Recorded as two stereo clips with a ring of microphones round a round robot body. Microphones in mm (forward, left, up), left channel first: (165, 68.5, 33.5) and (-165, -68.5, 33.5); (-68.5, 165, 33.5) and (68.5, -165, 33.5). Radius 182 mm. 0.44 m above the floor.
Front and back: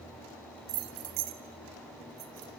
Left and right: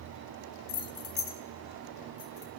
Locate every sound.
0.7 s keys jangling: 155° left, 0.9 m; by 2.5 s 175° left, 3.5 m